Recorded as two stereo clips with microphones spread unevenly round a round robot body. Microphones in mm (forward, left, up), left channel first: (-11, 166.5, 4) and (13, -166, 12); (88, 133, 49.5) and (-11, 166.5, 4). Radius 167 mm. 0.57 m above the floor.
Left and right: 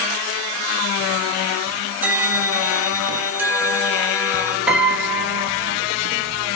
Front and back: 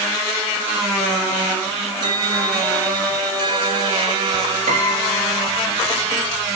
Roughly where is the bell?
Behind.